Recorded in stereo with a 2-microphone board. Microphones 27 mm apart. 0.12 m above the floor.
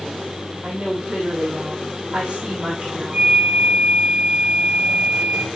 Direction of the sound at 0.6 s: 35° right (ahead or behind).